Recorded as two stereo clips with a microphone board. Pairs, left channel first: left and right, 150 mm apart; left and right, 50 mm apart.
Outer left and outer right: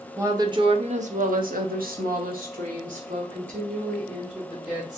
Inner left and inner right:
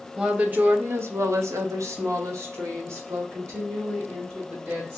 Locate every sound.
0.2 s a woman speaking: 20° right (ahead or behind), 0.9 m; by 5.0 s 55° right (ahead or behind), 2.5 m